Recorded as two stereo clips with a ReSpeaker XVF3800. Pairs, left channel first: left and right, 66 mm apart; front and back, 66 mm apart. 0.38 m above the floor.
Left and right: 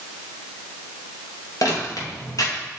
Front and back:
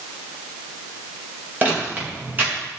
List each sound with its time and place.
1.6 s footsteps: 120° left, 5.5 m